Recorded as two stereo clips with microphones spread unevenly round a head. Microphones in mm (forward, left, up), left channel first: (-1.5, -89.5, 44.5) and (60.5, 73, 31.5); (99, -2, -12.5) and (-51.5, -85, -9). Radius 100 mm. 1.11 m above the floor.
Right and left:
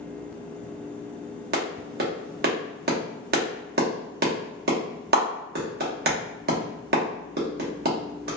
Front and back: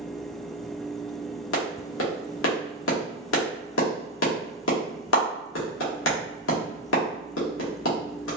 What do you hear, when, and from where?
1.5 s a clap: 40° left, 1.0 m